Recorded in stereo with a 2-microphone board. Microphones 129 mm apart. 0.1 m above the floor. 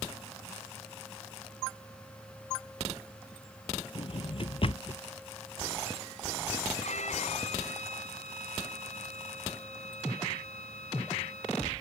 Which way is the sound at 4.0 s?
50° left (ahead or behind).